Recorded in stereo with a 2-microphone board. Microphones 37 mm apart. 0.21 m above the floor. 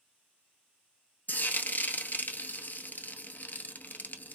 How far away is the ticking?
I don't hear ticking.